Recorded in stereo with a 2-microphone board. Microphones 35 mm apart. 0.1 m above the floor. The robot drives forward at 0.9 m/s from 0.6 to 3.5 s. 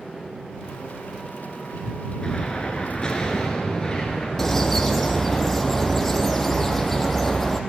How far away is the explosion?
About 1.6 m.